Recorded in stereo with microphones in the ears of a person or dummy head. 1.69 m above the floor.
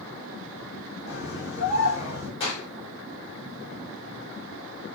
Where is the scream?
55° left (ahead or behind), 5 m.